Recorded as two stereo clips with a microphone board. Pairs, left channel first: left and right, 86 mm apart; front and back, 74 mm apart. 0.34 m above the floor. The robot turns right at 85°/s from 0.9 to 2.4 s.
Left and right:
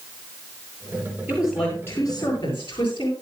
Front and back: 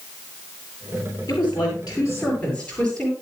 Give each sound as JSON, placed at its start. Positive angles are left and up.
{"t": 1.3, "sound": "a woman speaking", "azimuth_deg": -20, "distance_m": 7.5}